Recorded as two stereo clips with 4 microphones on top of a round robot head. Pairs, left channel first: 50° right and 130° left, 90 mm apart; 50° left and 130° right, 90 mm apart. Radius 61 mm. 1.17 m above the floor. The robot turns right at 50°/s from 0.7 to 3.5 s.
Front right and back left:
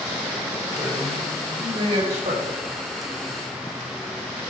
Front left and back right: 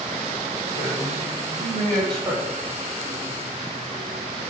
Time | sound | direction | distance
0.8 | a man speaking | 65° left | 5 m